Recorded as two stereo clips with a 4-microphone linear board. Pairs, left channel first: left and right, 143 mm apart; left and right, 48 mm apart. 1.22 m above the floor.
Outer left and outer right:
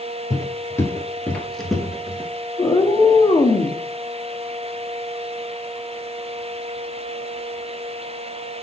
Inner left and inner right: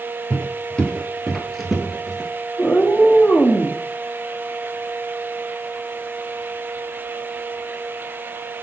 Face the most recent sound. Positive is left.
turn(degrees=35)  # may be behind; listen again after turning